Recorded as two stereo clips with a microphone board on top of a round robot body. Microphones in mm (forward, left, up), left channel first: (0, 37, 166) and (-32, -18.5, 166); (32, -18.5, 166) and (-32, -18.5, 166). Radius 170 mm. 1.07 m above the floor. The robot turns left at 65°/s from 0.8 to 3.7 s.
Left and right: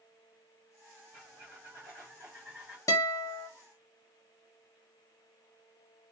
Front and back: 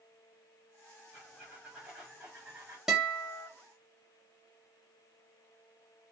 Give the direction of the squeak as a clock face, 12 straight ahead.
2 o'clock.